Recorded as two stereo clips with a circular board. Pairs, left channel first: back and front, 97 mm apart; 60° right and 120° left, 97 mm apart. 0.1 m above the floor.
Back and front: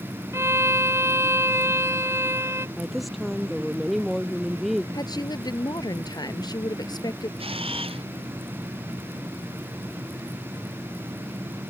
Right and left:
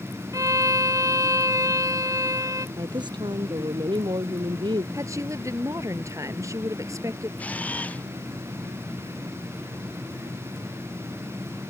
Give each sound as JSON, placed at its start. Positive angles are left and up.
{"t": 0.3, "sound": "a violin", "azimuth_deg": 65}
{"t": 2.8, "sound": "a woman speaking", "azimuth_deg": 90}
{"t": 4.9, "sound": "a woman speaking", "azimuth_deg": 165}
{"t": 7.4, "sound": "a camera shutter", "azimuth_deg": 15}